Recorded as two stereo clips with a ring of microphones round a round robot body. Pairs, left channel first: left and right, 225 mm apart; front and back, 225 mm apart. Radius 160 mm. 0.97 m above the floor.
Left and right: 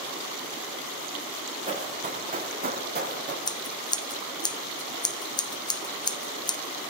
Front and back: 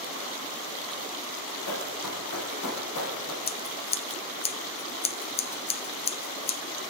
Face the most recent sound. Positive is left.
turn(degrees=35)